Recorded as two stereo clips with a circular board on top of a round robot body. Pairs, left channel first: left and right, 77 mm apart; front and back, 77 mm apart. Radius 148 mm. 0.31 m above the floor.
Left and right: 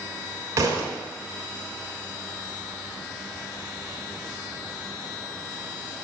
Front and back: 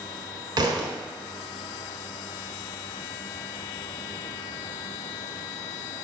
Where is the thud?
145° right, 1.2 m.